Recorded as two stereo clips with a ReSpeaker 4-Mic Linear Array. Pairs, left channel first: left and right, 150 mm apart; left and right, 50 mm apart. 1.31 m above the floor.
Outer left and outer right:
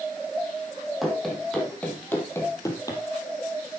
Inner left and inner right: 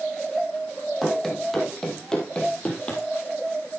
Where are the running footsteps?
Centre (ahead or behind), 3 m; by 3.0 s 25° left (ahead or behind), 2.5 m.